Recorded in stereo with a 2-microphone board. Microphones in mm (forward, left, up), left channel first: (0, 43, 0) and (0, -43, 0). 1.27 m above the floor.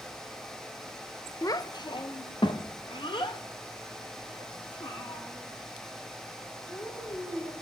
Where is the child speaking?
45° left (ahead or behind), 0.5 m; by 7.5 s 75° left (ahead or behind), 3.5 m.